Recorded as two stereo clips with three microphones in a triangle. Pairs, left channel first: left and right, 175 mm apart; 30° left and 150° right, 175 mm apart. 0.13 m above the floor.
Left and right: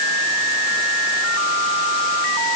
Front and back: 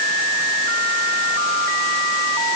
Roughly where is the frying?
No frying in this recording.